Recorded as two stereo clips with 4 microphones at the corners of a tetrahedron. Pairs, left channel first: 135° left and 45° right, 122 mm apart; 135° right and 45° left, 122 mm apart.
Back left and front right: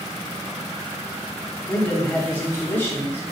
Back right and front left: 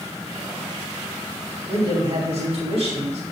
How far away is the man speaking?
About 3 m.